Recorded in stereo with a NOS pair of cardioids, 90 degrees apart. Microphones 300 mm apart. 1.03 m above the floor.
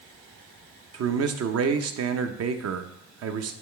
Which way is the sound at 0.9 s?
60° right.